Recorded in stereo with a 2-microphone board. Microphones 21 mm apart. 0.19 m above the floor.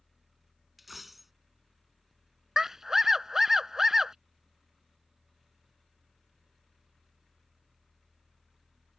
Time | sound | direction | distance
0.8 | a dropped coin | 5° right (ahead or behind) | ?
2.6 | a scream | 25° right (ahead or behind) | ?